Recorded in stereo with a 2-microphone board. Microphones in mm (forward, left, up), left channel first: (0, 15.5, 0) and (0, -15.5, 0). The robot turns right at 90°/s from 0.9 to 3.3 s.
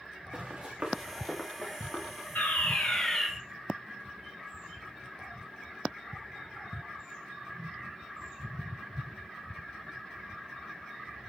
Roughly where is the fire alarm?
Left.